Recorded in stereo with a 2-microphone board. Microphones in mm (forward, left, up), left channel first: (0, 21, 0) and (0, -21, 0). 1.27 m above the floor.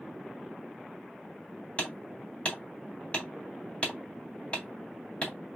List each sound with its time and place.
1.8 s hammering: 35° left (ahead or behind), 1.5 m